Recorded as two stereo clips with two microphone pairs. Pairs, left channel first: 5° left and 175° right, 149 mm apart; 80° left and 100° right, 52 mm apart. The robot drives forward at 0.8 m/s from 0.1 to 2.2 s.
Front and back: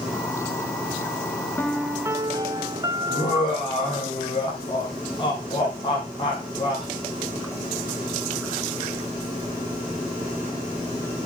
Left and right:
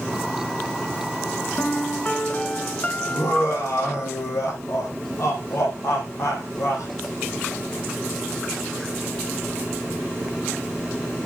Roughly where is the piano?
Left.